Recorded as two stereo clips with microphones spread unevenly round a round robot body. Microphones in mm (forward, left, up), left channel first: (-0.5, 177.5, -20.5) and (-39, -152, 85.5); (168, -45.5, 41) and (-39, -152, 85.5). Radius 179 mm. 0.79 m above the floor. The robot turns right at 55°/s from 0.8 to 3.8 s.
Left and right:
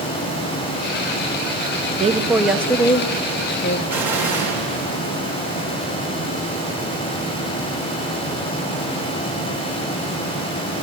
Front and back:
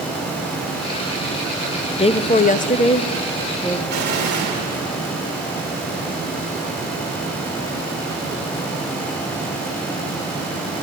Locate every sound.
1.9 s a woman speaking: 20° right, 0.8 m; by 3.8 s 85° left, 0.8 m
3.9 s an explosion: 175° left, 3 m